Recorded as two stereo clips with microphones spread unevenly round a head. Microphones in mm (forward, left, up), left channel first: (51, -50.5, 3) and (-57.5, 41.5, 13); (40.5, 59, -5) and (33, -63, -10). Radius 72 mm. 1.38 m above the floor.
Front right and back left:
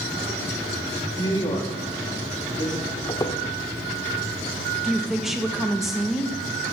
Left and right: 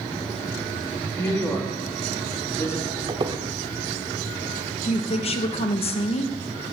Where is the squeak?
95° right, 1.1 m.